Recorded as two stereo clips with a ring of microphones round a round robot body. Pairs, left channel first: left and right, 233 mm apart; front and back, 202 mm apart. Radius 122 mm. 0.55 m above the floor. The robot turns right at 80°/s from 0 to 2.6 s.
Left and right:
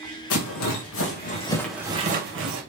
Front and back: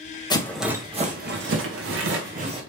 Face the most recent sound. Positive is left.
turn(degrees=-110)